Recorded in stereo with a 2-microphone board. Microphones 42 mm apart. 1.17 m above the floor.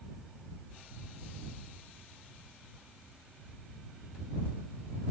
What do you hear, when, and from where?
Only background noise.